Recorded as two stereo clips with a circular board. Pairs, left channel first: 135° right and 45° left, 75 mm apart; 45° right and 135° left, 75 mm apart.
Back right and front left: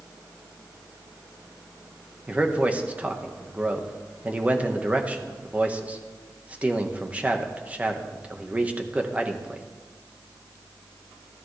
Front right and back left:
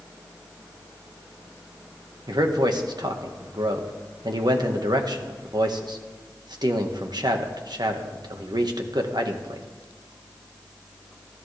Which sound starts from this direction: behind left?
A man speaking, at 2.3 s.